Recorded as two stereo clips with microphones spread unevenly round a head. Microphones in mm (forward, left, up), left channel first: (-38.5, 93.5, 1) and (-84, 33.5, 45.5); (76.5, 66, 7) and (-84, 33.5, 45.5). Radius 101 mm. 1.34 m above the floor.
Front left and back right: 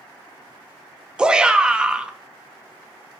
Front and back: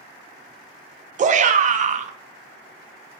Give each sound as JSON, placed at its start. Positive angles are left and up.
{"t": 1.2, "sound": "a shout", "azimuth_deg": 140, "distance_m": 0.6}